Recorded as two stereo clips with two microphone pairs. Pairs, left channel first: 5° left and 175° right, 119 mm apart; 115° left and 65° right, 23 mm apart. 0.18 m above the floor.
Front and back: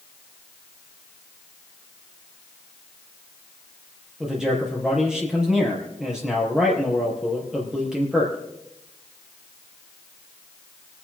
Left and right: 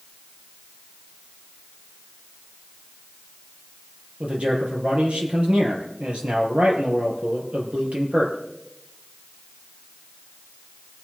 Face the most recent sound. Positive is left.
turn(degrees=-90)